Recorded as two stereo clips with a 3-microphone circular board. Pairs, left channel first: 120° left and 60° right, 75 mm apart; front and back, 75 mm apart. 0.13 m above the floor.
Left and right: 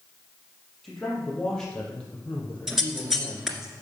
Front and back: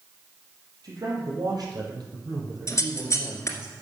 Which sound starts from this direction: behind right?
A man speaking, at 0.8 s.